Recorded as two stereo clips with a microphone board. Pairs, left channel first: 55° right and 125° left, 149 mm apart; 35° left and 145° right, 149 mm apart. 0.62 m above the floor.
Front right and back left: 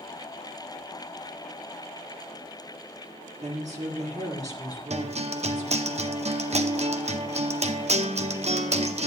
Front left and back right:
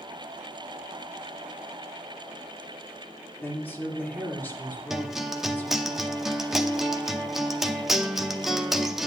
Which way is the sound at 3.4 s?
105° left.